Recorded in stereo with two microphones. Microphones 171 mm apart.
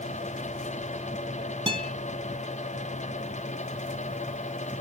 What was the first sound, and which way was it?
A guitar, 30° right (ahead or behind).